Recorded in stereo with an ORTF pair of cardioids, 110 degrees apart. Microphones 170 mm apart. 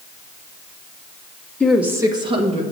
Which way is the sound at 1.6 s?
10° left.